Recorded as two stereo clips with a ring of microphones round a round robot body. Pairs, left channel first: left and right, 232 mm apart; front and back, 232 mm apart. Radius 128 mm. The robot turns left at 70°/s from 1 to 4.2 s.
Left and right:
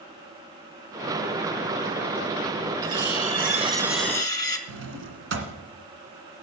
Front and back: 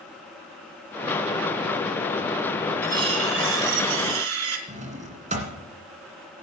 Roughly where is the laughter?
No laughter in this recording.